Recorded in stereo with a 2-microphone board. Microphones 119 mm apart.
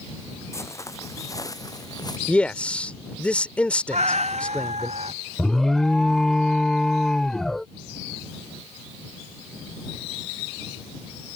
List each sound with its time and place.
0.5 s footsteps: 25° left (ahead or behind); by 2.2 s 35° left (ahead or behind)
2.3 s a man speaking: 10° left (ahead or behind)
3.9 s a cat meowing: 70° right (ahead or behind)
5.4 s an alarm: 5° left (ahead or behind)